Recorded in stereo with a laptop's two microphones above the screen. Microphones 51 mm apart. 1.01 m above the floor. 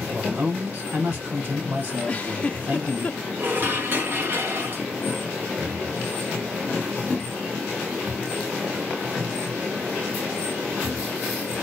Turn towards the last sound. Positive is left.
turn(degrees=-45)  # may be behind; listen again after turning